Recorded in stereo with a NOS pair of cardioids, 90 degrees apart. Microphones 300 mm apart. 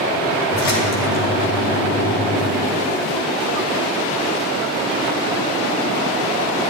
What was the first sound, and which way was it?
A splash, 55° left.